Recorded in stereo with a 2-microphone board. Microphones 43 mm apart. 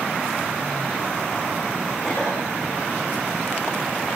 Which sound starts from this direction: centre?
A cough, at 2.0 s.